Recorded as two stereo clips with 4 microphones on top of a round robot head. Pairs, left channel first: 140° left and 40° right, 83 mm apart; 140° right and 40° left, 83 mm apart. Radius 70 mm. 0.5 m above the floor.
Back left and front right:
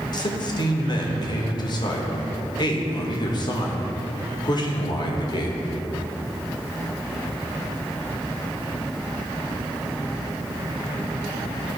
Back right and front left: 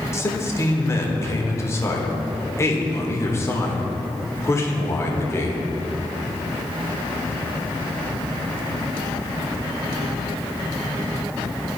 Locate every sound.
0.1 s a man speaking: 165° left, 1.3 m